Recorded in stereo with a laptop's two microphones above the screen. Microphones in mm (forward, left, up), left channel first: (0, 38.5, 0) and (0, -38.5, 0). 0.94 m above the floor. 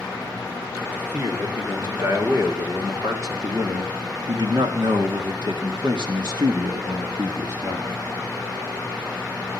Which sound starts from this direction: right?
A man speaking, at 0.8 s.